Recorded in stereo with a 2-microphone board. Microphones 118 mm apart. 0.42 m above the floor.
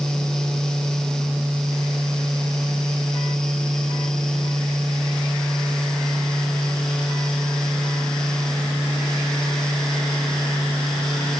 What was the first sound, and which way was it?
Only background noise.